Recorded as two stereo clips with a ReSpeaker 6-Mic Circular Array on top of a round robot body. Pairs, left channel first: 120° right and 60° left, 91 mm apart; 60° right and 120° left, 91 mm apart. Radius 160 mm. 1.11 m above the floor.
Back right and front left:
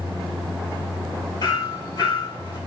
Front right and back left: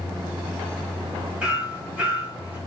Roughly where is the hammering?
Behind.